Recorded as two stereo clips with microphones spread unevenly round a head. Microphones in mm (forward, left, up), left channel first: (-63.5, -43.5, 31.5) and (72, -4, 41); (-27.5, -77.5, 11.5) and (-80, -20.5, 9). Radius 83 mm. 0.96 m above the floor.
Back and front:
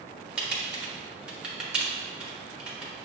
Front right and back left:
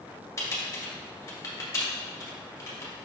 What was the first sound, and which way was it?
Typing on a keyboard, 70° right.